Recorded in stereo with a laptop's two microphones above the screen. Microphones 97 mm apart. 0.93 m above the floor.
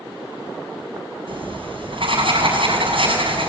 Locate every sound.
1.3 s writing: 65° right (ahead or behind), 7 m